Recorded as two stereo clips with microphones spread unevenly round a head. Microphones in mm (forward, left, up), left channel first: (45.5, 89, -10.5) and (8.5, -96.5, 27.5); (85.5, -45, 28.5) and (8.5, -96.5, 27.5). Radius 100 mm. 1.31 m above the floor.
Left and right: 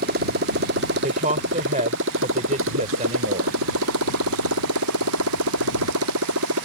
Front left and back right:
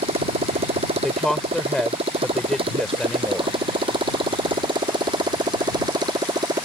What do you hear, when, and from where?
0.0 s a motorcycle: 145° right; by 6.7 s 100° right
1.0 s a woman speaking: 50° right